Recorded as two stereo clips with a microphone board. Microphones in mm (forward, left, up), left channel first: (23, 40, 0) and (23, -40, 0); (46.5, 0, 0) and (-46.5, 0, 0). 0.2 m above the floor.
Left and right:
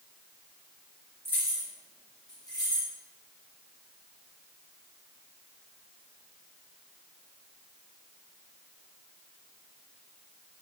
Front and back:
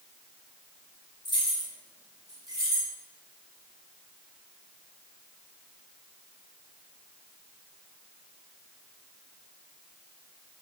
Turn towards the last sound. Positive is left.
turn(degrees=60)